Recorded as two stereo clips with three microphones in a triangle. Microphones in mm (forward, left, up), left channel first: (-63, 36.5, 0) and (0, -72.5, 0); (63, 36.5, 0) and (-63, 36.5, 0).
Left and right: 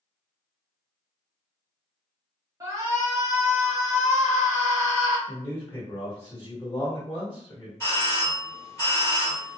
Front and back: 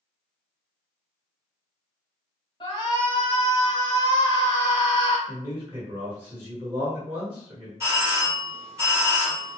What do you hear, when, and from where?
2.6 s a shout: 15° right, 1.2 m
5.3 s a man speaking: 160° left, 1.3 m
7.8 s a doorbell: 160° left, 1.5 m